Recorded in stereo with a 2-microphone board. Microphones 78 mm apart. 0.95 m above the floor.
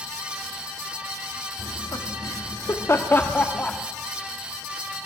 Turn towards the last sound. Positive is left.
turn(degrees=15)  # may be behind; listen again after turning